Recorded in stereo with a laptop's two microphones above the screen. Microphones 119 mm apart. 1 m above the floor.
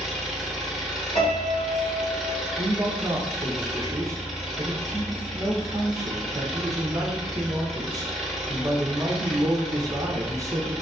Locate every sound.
0.0 s an engine running: 5° left (ahead or behind), 1.8 m
1.1 s a piano: 55° left (ahead or behind), 1.7 m
2.6 s a man speaking: 30° right (ahead or behind), 0.8 m